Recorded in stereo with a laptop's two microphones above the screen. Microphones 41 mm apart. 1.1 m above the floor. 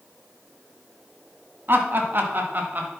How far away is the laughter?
About 2.5 m.